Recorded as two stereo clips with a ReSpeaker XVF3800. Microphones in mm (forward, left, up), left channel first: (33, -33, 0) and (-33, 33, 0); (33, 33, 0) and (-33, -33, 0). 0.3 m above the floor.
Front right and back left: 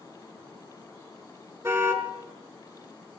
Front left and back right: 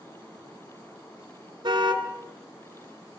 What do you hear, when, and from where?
1.6 s a car horn: 170° right, 2.5 m